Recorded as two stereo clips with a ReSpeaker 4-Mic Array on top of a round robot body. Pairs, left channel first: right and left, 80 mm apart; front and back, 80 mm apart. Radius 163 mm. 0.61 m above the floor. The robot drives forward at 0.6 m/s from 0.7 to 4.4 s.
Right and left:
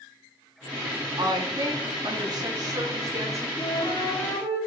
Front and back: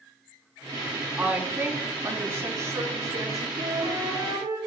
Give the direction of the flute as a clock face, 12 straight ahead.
5 o'clock.